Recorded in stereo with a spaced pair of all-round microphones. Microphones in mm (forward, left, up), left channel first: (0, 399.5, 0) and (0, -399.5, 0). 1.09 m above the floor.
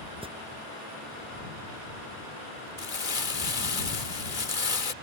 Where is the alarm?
5° right (ahead or behind).